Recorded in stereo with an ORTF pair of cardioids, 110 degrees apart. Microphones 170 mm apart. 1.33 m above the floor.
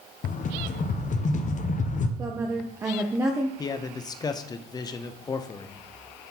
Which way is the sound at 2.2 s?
15° right.